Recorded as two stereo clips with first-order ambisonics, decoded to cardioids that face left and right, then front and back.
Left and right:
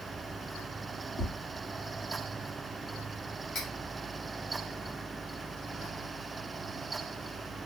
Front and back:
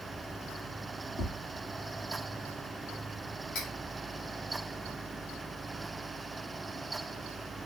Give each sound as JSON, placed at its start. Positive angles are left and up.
{"t": 1.2, "sound": "tapping", "azimuth_deg": 55, "distance_m": 1.2}
{"t": 3.5, "sound": "cutlery clinking", "azimuth_deg": 40, "distance_m": 1.8}